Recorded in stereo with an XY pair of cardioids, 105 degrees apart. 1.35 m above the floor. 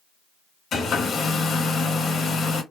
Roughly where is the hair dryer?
Ahead left.